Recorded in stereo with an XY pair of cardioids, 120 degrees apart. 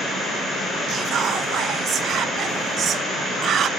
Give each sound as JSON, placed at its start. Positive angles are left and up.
{"t": 0.9, "sound": "whispering", "azimuth_deg": -55, "distance_m": 0.5}